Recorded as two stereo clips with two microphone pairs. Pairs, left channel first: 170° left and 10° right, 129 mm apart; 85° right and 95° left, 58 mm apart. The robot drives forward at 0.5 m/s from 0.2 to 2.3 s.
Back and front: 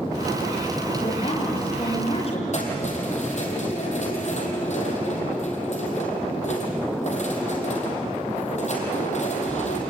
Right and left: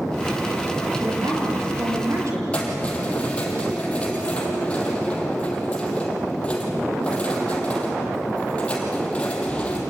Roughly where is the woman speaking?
Behind left.